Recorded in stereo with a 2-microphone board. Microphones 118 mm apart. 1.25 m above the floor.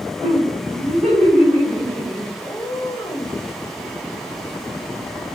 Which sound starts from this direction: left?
A cat meowing, at 2.4 s.